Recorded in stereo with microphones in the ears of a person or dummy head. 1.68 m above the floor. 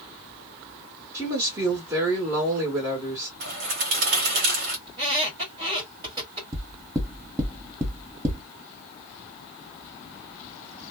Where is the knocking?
20° right (ahead or behind), 0.9 m.